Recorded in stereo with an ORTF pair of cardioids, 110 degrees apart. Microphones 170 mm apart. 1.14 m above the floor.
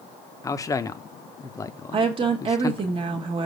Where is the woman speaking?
30° right, 0.9 m.